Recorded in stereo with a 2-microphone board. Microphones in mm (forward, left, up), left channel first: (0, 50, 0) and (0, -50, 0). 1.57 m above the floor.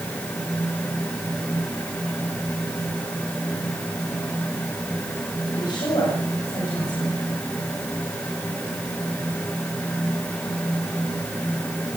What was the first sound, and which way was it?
A woman speaking, 45° left (ahead or behind).